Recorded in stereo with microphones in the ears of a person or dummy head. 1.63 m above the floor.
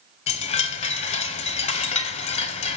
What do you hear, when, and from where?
0.3 s a chime: 35° left (ahead or behind), 0.9 m